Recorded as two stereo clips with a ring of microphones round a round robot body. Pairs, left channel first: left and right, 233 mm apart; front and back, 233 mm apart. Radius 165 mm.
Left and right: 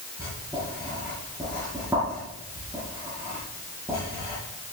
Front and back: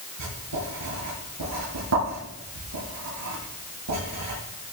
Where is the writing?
170° right, 9.5 m.